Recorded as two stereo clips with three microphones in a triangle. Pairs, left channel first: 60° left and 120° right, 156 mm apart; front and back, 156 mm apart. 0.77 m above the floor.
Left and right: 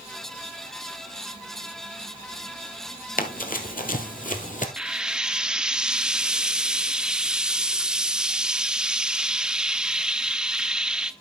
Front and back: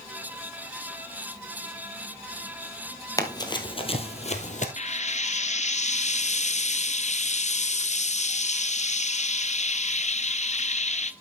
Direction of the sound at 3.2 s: 65° left.